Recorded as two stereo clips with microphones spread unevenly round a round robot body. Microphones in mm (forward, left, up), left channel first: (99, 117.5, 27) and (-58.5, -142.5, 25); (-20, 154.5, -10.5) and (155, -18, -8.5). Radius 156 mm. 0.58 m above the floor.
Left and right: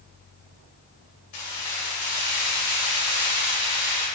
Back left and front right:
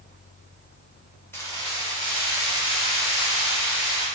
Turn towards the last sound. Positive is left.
turn(degrees=120)